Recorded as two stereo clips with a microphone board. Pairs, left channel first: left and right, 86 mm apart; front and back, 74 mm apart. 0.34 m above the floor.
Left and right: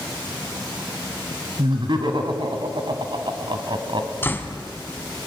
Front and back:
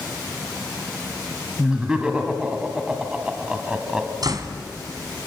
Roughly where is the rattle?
No rattle in this recording.